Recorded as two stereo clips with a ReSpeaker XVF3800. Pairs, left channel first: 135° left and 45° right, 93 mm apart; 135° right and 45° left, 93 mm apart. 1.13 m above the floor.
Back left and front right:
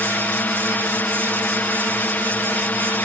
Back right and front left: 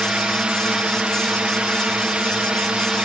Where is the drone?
105° left.